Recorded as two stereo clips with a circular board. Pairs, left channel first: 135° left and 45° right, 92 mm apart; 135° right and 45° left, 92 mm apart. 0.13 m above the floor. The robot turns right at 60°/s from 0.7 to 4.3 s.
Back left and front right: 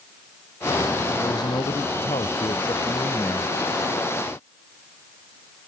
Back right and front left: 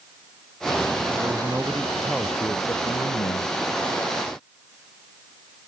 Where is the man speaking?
85° left; by 3.6 s 135° right.